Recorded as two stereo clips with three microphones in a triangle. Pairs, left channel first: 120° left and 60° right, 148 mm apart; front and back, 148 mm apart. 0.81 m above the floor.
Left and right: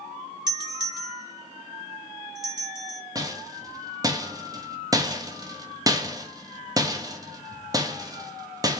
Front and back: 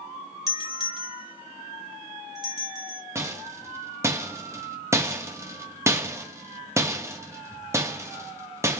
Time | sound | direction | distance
0.5 | a doorbell | 120° right | 1.9 m
3.1 | a rattle | 115° right | 1.0 m